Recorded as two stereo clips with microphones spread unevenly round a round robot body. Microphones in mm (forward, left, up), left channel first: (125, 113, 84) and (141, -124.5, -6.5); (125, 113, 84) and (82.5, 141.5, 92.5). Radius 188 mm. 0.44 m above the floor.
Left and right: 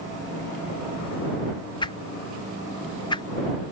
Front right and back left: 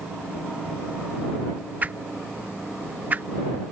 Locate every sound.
1.8 s a whoosh: 175° right